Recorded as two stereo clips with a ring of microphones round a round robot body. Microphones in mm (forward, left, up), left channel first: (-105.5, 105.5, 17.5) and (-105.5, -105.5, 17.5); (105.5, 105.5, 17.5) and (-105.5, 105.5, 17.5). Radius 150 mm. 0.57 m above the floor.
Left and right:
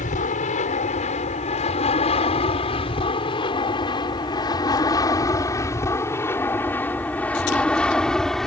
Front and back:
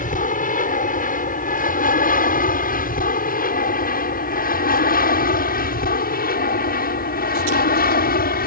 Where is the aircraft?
40° left; by 8.5 s straight ahead.